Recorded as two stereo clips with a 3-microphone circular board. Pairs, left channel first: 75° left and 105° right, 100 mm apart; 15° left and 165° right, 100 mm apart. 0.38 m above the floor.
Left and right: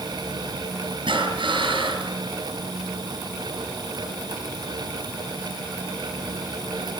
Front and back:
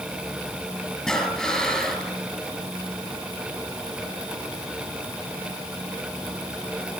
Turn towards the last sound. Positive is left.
turn(degrees=-70)